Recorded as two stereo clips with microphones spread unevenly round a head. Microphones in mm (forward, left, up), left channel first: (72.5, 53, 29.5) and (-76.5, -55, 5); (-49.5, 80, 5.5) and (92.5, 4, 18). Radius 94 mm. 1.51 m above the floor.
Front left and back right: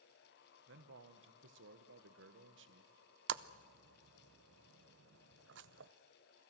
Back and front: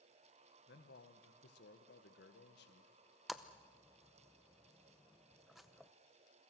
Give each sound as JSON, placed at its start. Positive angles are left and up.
{"t": 0.7, "sound": "a man speaking", "azimuth_deg": -170, "distance_m": 1.5}
{"t": 3.3, "sound": "a splash", "azimuth_deg": -115, "distance_m": 0.6}